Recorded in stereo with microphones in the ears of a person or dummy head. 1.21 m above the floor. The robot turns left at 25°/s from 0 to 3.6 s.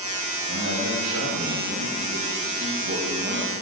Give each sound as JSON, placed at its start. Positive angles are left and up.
{"t": 0.5, "sound": "a man speaking", "azimuth_deg": -75, "distance_m": 2.5}